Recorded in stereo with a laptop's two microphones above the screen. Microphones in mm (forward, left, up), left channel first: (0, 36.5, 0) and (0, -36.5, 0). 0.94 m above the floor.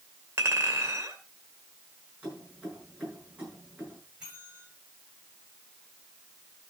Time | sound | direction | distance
0.4 | a clink | 40° right (ahead or behind) | 2.5 m
2.2 | keys jangling | 15° right (ahead or behind) | 8 m
4.2 | a bell | 15° right (ahead or behind) | 9.5 m